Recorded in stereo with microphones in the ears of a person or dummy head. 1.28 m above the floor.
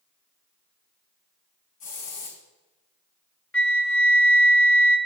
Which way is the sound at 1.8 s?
40° left (ahead or behind).